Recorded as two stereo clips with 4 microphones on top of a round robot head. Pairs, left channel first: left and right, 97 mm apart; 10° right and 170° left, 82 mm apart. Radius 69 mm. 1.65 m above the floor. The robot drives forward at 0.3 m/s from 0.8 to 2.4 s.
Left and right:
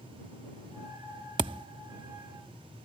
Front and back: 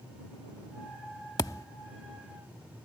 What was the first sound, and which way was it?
A thud, 60° right.